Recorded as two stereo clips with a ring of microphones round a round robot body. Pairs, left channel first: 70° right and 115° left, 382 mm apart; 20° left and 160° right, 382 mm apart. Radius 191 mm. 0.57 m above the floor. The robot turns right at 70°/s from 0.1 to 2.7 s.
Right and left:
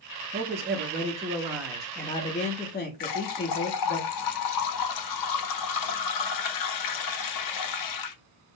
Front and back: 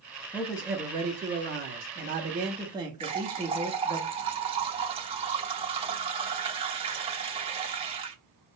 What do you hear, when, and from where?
0.3 s a man speaking: 100° left, 0.7 m; by 4.0 s 95° right, 0.7 m
3.0 s a running tap: 85° right, 0.8 m